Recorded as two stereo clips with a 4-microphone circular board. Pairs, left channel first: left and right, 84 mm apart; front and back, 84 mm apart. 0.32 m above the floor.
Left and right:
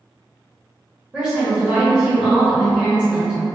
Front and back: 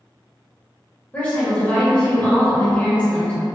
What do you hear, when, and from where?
1.1 s a woman speaking: 35° right, 0.9 m